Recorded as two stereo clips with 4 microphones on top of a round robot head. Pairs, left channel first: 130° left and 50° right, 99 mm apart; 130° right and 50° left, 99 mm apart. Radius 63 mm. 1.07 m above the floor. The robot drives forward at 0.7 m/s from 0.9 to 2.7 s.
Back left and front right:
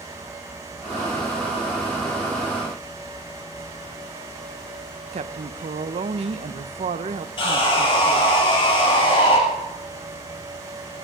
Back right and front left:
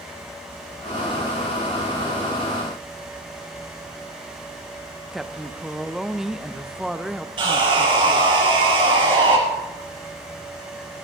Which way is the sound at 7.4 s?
90° left.